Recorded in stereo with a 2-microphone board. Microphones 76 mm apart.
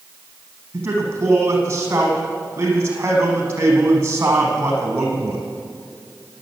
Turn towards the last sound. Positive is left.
turn(degrees=-30)  # may be behind; listen again after turning